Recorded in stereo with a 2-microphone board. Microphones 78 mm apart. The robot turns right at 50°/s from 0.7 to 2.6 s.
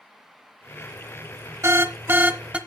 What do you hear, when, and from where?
1.6 s an alarm: 75° right, 0.8 m; by 2.6 s 25° right, 0.8 m